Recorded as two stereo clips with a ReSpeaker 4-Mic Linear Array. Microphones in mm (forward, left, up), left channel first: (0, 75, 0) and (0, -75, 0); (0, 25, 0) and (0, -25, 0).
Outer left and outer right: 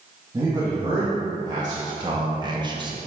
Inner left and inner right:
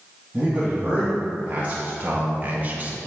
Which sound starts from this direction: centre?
A man speaking, at 0.3 s.